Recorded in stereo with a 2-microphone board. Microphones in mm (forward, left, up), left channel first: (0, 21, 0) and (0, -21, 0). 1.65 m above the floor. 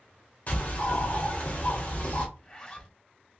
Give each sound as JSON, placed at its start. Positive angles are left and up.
{"t": 0.5, "sound": "a bird", "side_deg": 45, "distance_m": 1.0}
{"t": 2.4, "sound": "a zipper", "side_deg": 20, "distance_m": 1.1}